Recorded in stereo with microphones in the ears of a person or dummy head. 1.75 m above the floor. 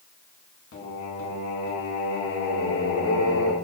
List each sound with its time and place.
0.7 s singing: 70° left (ahead or behind), 1.3 m